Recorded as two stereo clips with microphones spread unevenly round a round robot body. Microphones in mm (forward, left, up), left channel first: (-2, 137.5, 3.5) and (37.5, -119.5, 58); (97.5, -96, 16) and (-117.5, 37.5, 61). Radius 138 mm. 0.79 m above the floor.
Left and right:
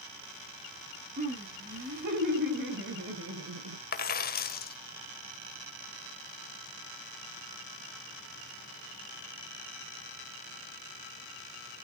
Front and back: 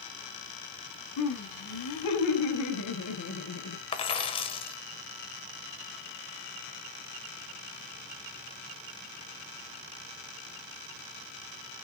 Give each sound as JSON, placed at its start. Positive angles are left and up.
{"t": 1.2, "sound": "laughter", "azimuth_deg": -20, "distance_m": 6.5}
{"t": 3.9, "sound": "a dropped coin", "azimuth_deg": 40, "distance_m": 1.4}